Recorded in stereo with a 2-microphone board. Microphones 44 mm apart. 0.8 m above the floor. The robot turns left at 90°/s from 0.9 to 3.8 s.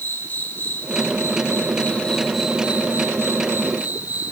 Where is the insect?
130° left, 1.9 m; by 4.3 s 130° right, 1.9 m.